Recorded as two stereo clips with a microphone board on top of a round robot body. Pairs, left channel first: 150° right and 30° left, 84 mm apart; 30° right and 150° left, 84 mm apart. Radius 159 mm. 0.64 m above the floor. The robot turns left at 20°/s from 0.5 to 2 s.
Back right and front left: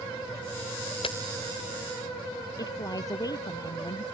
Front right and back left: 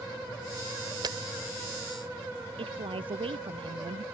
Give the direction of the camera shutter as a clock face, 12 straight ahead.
6 o'clock.